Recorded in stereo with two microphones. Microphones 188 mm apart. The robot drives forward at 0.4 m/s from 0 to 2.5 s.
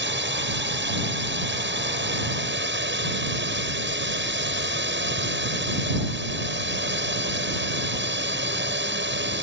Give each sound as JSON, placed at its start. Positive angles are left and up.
{"t": 0.0, "sound": "a drone", "side_deg": -75}